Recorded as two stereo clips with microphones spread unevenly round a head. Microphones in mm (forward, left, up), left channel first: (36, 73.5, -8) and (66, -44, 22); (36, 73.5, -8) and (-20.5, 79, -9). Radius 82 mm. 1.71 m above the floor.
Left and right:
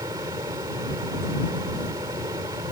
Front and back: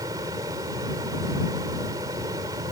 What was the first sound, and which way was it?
A fan, 145° right.